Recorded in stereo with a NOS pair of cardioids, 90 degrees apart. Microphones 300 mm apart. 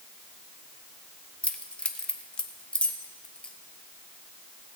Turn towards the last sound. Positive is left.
turn(degrees=5)